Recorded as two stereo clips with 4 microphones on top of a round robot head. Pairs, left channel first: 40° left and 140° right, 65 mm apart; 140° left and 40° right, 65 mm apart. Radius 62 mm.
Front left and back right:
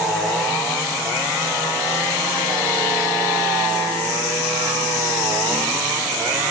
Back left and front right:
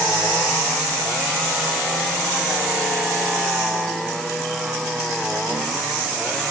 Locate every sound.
Only background noise.